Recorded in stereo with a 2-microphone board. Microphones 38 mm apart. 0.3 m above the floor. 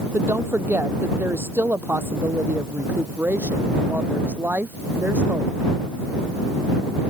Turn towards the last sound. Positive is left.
turn(degrees=-65)  # may be behind; listen again after turning